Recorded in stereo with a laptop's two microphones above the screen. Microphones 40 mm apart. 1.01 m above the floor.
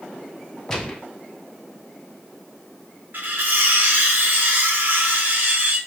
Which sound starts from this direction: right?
Cutlery clinking, at 3.1 s.